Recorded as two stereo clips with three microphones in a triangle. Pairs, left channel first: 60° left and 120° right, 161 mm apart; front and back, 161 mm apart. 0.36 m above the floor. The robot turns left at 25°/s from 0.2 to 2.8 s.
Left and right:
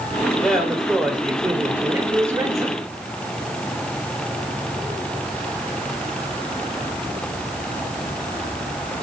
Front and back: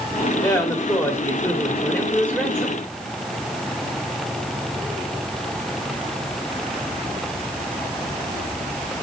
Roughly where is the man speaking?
Ahead right.